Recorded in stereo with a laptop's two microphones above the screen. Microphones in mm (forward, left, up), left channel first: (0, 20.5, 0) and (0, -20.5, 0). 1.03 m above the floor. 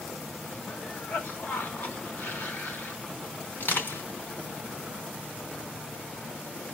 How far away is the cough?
About 2 m.